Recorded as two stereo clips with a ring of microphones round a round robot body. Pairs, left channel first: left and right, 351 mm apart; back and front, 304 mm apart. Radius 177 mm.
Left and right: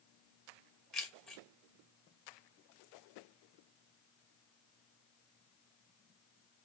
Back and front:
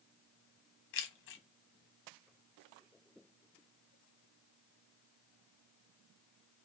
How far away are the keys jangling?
About 0.7 m.